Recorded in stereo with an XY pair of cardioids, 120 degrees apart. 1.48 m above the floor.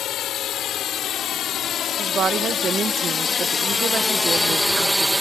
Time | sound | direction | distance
0.0 | a drone | 60° left | ?
2.0 | a woman speaking | 40° right | ?